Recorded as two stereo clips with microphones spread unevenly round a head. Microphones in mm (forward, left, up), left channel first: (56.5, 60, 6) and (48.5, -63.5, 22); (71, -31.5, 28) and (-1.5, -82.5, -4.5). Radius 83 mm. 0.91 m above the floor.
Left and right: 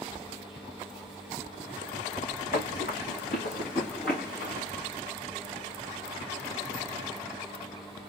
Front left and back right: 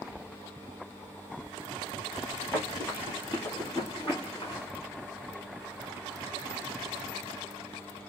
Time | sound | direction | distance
2.5 | running footsteps | 120° left | 3 m